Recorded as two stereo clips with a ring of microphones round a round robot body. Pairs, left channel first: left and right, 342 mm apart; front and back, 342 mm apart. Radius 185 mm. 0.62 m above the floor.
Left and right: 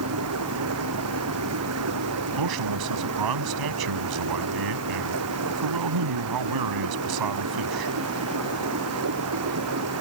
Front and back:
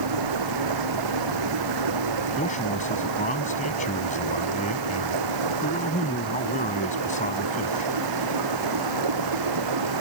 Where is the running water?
145° right.